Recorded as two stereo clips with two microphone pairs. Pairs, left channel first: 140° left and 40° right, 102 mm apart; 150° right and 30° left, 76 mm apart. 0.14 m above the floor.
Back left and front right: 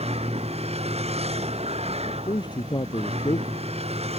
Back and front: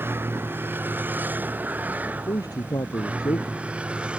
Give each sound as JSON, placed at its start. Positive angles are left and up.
{"t": 0.0, "sound": "a vehicle", "azimuth_deg": -35}
{"t": 2.0, "sound": "a man speaking", "azimuth_deg": 180}